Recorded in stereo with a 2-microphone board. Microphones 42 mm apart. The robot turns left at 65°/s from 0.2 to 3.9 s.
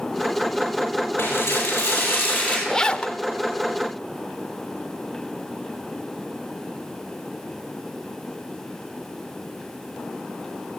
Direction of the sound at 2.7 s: 170° left.